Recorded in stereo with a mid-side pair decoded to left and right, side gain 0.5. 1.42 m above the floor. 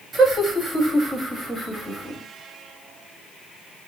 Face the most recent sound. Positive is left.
turn(degrees=-10)